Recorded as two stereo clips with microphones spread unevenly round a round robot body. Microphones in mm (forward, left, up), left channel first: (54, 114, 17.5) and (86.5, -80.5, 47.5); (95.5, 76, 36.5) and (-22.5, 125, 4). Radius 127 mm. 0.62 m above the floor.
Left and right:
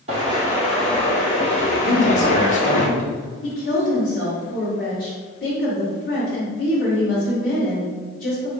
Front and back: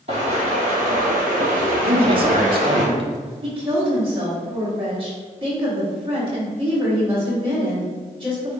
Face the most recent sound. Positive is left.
turn(degrees=130)